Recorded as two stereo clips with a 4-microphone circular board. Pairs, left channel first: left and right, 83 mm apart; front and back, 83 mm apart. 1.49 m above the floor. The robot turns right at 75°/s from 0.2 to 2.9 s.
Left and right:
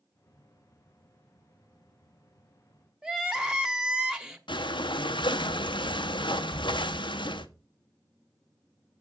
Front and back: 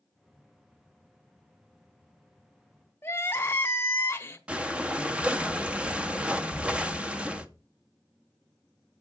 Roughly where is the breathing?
Left.